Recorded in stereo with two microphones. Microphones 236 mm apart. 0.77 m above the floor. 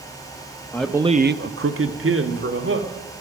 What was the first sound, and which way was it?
A man speaking, 5° left (ahead or behind).